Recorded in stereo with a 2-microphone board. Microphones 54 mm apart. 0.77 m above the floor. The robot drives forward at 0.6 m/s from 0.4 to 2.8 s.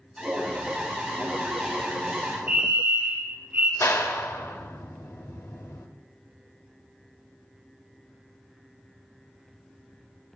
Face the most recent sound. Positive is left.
turn(degrees=70)  # may be behind; listen again after turning